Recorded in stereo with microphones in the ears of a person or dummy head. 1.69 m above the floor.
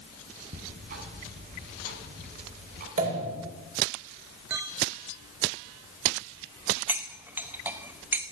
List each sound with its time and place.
0.5 s ticking: 45° right (ahead or behind), 5 m
3.0 s a pop: 40° right (ahead or behind), 8 m
4.5 s a clink: 5° right (ahead or behind), 0.5 m
6.9 s cutlery clinking: 10° right (ahead or behind), 1.2 m